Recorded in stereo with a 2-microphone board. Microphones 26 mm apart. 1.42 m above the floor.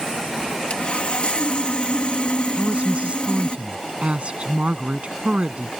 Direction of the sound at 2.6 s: 45° right (ahead or behind).